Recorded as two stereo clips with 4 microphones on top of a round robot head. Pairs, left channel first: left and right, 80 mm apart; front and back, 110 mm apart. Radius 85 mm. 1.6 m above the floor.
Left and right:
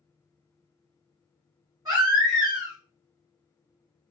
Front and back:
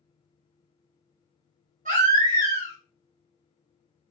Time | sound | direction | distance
1.9 | a baby crying | 155° right | 1.3 m